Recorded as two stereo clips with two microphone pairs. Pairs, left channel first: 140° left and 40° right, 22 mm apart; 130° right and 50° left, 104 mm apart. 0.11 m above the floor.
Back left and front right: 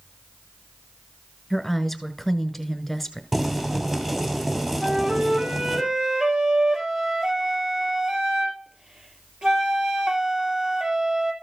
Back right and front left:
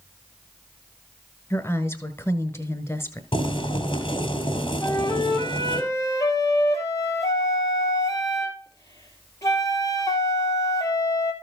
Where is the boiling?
105° right, 2.5 m.